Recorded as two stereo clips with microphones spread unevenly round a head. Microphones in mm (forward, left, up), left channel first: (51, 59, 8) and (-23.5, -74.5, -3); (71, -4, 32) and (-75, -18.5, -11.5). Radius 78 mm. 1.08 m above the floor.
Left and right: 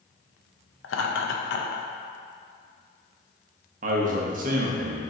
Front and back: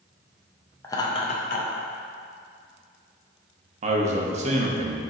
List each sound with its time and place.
0.8 s laughter: 80° left, 0.6 m; by 1.9 s 30° left, 0.7 m
3.8 s a man speaking: 150° right, 0.7 m